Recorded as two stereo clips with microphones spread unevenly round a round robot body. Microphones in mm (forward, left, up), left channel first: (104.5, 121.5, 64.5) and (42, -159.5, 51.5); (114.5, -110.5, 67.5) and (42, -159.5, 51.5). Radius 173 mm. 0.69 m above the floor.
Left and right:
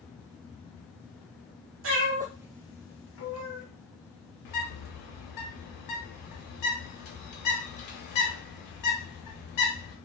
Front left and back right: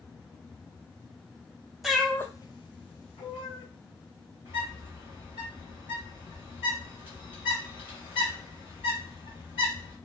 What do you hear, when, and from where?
1.8 s a cat meowing: 55° right, 0.8 m; by 3.6 s 45° left, 1.1 m
4.5 s a bird: 80° left, 0.8 m